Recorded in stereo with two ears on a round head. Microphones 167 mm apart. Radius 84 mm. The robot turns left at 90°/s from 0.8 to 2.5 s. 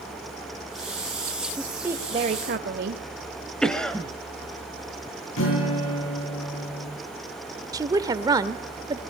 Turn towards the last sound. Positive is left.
turn(degrees=-20)  # may be behind; listen again after turning